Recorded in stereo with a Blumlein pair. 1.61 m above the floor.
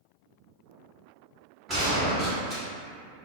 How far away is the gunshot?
About 1.4 m.